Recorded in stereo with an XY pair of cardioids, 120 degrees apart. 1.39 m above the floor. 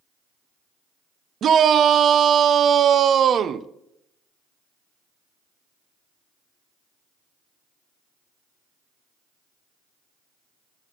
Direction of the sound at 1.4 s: 50° right.